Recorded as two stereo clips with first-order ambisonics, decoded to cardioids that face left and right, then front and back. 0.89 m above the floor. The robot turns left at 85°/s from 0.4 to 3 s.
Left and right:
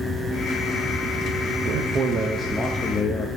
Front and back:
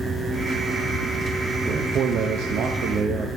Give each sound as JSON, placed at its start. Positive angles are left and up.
{"t": 1.6, "sound": "a man speaking", "azimuth_deg": -105, "distance_m": 0.9}